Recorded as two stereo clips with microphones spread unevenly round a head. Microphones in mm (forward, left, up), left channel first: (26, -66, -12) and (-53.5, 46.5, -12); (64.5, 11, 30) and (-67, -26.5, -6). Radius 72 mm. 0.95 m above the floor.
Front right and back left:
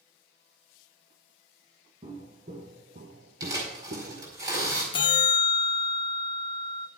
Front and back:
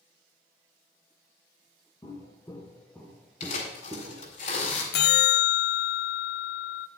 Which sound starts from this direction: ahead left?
Tearing paper, at 3.4 s.